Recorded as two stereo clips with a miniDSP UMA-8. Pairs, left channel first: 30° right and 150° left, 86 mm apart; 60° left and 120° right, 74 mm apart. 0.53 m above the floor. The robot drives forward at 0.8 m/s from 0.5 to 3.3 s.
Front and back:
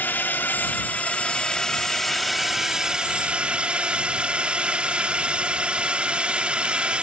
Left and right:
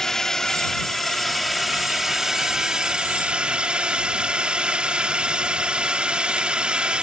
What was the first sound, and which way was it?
A drone, 15° right.